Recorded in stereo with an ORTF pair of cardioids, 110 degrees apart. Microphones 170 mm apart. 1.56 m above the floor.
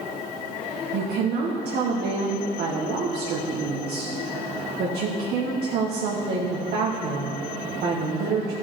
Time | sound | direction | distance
0.9 | a woman speaking | 60° right | 1.1 m